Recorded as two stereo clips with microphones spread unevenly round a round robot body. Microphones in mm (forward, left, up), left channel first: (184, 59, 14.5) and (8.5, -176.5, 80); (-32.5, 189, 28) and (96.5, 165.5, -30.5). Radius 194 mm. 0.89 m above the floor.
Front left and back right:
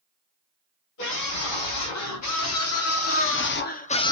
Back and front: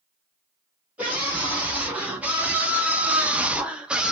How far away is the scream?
About 2 m.